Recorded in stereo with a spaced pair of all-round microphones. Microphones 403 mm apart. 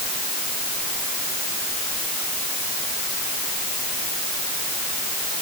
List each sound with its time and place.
Only background noise.